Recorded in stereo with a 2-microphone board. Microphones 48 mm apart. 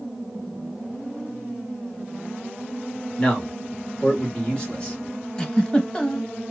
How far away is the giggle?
About 0.7 m.